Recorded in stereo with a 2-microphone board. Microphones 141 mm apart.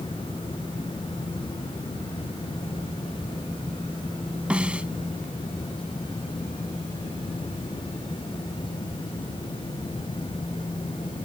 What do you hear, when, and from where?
4.5 s a snare drum: 10° right (ahead or behind)